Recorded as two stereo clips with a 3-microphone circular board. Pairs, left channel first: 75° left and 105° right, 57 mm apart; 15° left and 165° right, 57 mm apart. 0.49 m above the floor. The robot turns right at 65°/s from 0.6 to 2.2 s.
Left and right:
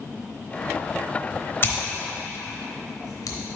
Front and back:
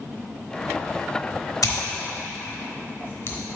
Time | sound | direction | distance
1.6 | scissors | 25° left | 0.9 m